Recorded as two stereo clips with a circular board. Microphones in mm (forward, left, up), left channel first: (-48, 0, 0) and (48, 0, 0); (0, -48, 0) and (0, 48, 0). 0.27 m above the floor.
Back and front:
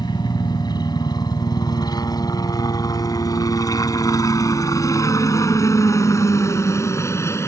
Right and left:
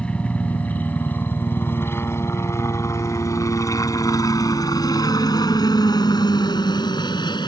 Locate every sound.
0.0 s a helicopter: 165° right; by 7.5 s 120° right